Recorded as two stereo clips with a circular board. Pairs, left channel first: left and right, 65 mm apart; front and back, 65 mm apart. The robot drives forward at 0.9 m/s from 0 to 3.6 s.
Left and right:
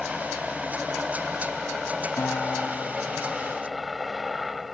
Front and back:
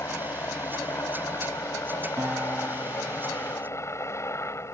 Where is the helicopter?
Straight ahead.